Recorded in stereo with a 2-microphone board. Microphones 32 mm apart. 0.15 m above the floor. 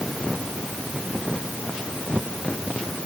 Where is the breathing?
I don't hear breathing.